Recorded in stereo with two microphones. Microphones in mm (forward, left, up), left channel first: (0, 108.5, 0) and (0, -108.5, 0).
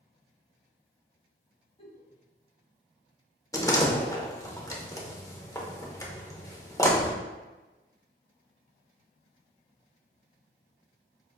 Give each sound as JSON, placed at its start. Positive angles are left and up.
{"t": 1.8, "sound": "a giggle", "side_deg": 30, "distance_m": 0.9}
{"t": 3.5, "sound": "a door slam", "side_deg": 15, "distance_m": 0.7}